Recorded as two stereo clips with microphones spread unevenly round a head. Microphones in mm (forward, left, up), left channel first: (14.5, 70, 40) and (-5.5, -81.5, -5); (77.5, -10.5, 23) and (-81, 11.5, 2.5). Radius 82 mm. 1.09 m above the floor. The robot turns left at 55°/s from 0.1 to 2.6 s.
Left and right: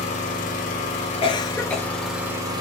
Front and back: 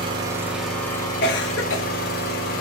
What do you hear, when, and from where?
0.0 s an engine running: 110° left, 1.2 m; by 2.6 s 30° right, 1.2 m
1.2 s a cough: 25° left, 0.8 m; by 1.9 s 10° right, 0.8 m